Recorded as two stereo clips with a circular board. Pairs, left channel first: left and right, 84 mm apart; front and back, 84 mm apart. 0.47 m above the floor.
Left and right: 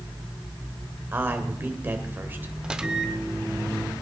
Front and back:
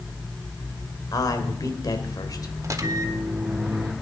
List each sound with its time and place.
1.1 s a man speaking: 30° right, 2.0 m
2.6 s a microwave: 165° right, 0.9 m